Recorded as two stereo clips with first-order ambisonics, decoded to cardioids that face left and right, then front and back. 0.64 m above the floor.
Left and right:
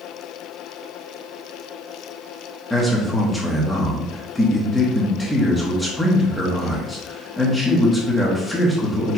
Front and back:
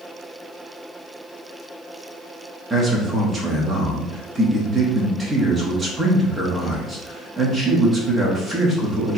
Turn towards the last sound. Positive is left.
turn(degrees=155)